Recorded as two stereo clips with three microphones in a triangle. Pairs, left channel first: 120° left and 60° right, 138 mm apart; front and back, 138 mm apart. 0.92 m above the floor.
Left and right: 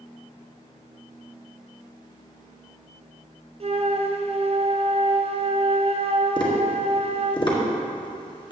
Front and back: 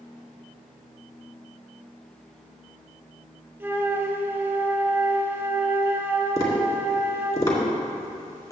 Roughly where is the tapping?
Left.